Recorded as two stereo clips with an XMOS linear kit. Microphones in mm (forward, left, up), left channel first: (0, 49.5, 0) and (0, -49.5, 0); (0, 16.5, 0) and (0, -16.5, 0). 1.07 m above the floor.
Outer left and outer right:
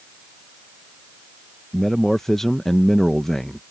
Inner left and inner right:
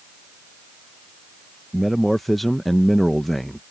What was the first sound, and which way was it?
A man speaking, 5° left (ahead or behind).